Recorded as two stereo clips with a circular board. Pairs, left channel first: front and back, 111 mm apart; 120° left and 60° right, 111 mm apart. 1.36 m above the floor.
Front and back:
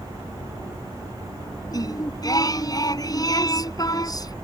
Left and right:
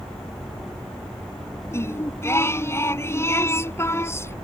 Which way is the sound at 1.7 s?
55° left.